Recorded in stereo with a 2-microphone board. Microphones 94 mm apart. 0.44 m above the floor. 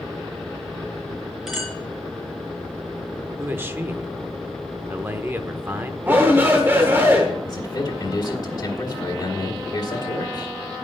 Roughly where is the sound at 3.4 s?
Right.